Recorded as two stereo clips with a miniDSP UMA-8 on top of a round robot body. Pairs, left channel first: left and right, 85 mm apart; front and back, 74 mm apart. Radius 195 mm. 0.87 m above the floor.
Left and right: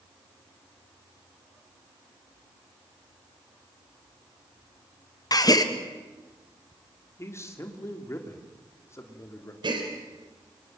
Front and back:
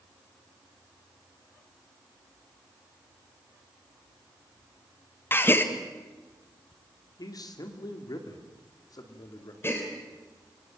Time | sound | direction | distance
5.3 | a gasp | 55° left | 1.8 m
7.2 | a man speaking | 35° left | 2.5 m
9.6 | a gasp | 60° right | 3.5 m